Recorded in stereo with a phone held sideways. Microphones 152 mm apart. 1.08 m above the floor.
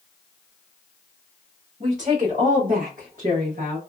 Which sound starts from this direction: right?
A woman speaking, at 1.8 s.